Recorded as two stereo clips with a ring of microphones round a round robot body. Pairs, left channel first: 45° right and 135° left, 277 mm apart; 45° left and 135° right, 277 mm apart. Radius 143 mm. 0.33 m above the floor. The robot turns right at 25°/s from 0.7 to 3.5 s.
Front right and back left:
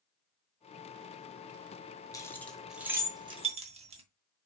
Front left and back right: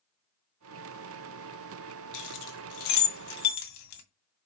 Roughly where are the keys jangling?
Ahead left.